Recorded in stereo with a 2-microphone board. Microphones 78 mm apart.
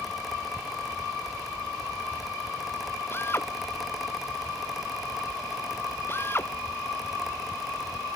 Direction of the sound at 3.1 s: 30° left (ahead or behind).